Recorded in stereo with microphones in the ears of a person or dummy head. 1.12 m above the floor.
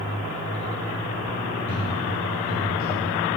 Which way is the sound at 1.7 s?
5° right (ahead or behind).